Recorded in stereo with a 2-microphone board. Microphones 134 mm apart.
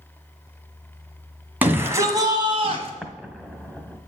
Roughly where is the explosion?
Centre.